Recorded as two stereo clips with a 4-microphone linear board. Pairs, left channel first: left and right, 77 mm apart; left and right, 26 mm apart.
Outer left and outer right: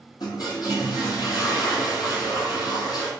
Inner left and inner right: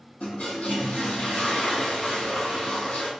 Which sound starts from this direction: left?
A toilet flushing, at 0.2 s.